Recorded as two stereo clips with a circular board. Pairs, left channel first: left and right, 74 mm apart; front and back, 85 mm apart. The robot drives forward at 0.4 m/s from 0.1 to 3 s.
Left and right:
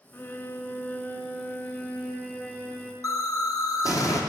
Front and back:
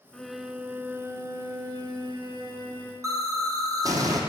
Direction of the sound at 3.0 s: 130° left.